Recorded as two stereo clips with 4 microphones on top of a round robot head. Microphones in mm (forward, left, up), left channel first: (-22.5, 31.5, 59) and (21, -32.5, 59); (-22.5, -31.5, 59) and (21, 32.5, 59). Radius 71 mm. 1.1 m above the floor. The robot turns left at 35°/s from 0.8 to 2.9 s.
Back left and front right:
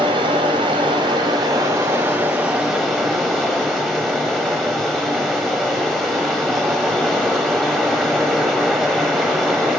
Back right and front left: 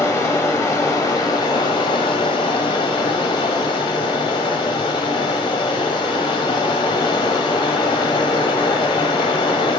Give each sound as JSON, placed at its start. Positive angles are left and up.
{"t": 0.0, "sound": "running water", "azimuth_deg": -75, "distance_m": 1.3}